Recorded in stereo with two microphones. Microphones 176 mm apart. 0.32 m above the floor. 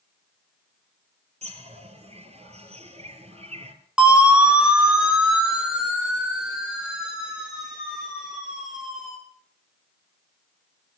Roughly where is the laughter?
No laughter in this recording.